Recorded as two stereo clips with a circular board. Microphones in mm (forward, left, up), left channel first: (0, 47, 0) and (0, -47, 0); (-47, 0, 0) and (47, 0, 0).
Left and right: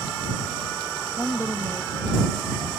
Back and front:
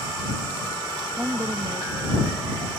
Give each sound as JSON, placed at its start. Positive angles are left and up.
{"t": 1.2, "sound": "a woman speaking", "azimuth_deg": 60}